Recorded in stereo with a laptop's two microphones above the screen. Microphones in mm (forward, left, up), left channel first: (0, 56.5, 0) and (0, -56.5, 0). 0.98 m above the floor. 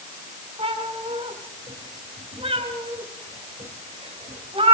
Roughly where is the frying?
No frying in this recording.